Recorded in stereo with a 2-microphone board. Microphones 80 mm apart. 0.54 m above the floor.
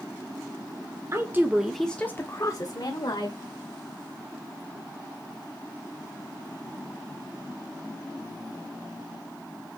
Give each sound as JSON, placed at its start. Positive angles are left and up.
{"t": 1.1, "sound": "a woman speaking", "side_deg": -35, "distance_m": 1.4}